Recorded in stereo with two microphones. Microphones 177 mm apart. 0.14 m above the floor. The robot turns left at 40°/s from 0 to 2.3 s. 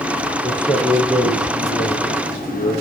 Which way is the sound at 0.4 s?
175° left.